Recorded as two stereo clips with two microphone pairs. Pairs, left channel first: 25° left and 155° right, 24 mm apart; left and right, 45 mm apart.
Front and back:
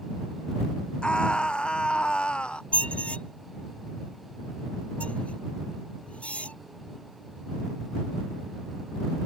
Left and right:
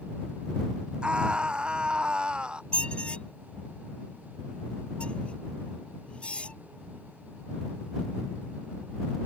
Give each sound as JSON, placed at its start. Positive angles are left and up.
{"t": 1.0, "sound": "a scream", "azimuth_deg": -25}
{"t": 2.7, "sound": "a squeak", "azimuth_deg": 25}